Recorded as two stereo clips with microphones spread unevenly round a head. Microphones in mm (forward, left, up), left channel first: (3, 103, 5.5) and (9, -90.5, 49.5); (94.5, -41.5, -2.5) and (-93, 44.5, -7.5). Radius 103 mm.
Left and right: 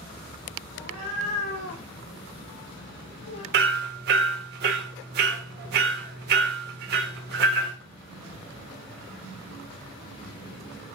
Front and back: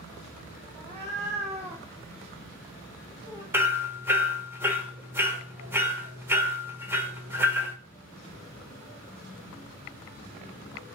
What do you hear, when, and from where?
0.8 s a cat meowing: 100° left, 3 m; by 3.4 s 75° left, 1.8 m
3.5 s hammering: 125° right, 1.4 m